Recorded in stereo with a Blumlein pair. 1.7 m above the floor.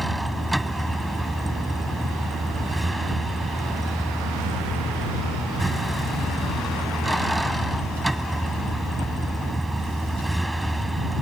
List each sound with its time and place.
0.0 s a vehicle: 5° right